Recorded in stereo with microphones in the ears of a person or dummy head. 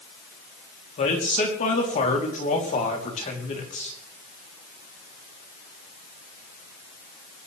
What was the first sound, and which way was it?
A man speaking, 40° left (ahead or behind).